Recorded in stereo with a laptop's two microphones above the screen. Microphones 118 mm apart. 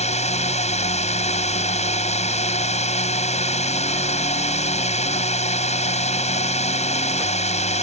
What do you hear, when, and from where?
0.0 s a drone: 70° left (ahead or behind)